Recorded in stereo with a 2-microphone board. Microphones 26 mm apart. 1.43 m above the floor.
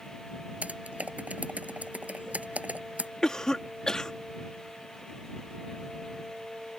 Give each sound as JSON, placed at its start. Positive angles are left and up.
{"t": 0.6, "sound": "typing on a keyboard", "side_deg": -70}
{"t": 3.2, "sound": "a cough", "side_deg": 25}